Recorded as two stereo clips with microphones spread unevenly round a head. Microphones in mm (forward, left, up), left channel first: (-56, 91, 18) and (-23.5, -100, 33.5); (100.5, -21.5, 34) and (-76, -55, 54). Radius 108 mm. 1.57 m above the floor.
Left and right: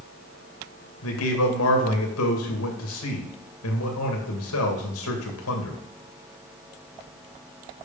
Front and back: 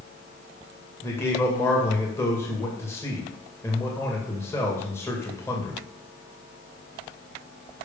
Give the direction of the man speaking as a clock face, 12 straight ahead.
9 o'clock.